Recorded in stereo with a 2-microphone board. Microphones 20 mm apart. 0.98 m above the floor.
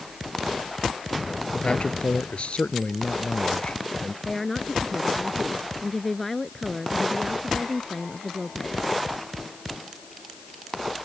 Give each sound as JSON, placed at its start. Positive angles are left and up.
{"t": 1.5, "sound": "a man speaking", "side_deg": 60}
{"t": 4.2, "sound": "a woman speaking", "side_deg": 10}